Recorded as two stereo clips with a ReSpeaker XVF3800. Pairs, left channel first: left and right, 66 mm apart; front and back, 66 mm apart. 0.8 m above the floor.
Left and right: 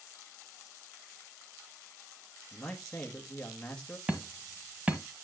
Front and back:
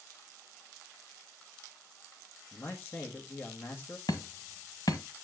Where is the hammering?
20° right, 1.4 m.